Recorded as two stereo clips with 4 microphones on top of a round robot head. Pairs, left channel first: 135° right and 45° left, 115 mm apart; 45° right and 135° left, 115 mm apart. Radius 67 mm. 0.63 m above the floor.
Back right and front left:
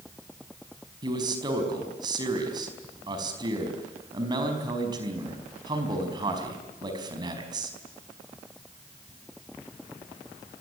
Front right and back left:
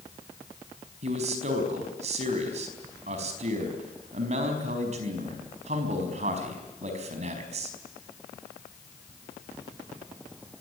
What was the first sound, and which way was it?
A man speaking, 100° left.